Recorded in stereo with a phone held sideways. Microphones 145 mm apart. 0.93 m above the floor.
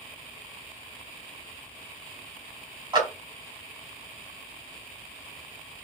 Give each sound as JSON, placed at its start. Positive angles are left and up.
{"t": 2.9, "sound": "a clap", "side_deg": -30, "distance_m": 3.5}